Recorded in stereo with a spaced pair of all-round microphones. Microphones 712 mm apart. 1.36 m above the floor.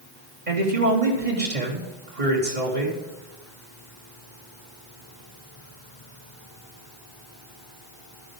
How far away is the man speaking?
About 3 m.